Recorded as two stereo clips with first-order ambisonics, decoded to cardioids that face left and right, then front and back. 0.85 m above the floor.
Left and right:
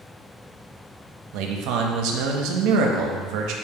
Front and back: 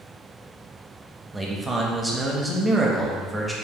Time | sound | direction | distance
1.3 | a man speaking | 95° right | 0.6 m